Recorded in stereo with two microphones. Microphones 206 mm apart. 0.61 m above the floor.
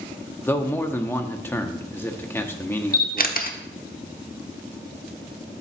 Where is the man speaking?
10° left (ahead or behind), 0.8 m.